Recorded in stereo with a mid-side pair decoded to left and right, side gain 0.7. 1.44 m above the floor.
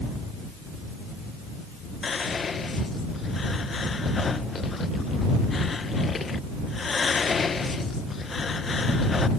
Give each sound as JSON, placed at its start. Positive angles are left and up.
{"t": 2.0, "sound": "whispering", "azimuth_deg": 25}